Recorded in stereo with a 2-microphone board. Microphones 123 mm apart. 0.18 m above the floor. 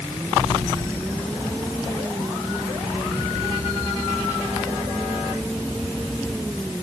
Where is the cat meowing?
I don't hear a cat meowing.